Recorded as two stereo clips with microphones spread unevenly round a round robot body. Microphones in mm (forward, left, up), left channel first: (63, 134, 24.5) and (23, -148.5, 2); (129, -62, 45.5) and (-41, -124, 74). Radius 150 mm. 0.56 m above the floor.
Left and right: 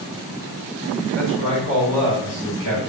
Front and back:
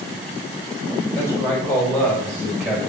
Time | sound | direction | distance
1.1 | a man speaking | 55° right | 4 m